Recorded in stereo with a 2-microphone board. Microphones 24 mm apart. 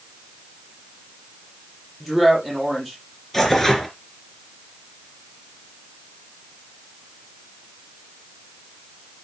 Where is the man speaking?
5° left (ahead or behind), 7.5 m.